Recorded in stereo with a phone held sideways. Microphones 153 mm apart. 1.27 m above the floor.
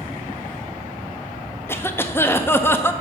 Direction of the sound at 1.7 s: 15° left (ahead or behind).